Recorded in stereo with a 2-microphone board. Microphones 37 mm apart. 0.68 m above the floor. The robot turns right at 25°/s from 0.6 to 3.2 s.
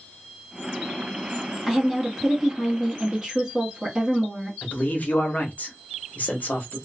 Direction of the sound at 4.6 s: 50° left (ahead or behind).